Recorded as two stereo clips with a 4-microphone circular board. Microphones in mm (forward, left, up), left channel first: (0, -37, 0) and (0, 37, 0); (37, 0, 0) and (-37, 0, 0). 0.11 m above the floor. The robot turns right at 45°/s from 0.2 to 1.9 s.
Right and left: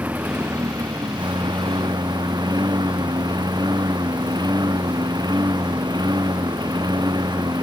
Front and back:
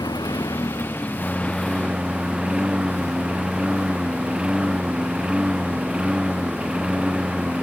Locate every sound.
0.0 s a lawn mower: 25° left; by 7.6 s 105° left